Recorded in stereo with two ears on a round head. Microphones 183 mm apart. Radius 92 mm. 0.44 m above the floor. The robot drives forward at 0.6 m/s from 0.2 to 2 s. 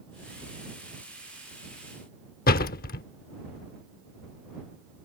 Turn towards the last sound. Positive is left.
turn(degrees=45)  # may be behind; listen again after turning